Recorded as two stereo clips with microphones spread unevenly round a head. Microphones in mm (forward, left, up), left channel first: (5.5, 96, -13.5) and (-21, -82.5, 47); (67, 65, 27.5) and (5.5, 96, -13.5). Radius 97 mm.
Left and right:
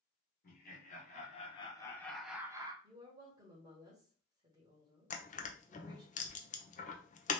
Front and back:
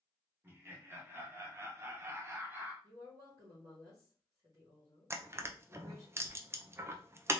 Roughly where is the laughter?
Left.